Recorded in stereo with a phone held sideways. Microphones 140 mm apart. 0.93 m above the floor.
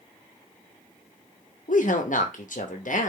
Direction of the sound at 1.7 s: 70° left (ahead or behind).